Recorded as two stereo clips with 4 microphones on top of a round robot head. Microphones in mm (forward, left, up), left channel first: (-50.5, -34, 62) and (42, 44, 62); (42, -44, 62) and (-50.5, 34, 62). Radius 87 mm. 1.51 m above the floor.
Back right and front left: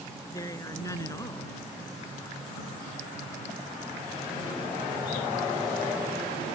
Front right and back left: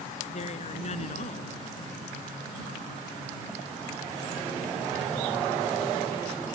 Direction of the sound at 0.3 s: 75° right.